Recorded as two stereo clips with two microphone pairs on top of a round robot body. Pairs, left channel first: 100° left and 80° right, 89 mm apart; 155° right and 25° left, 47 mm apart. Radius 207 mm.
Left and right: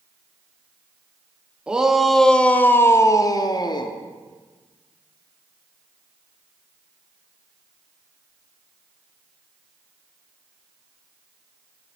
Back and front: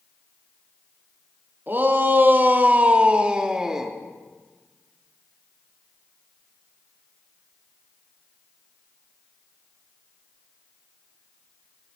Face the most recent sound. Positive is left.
turn(degrees=100)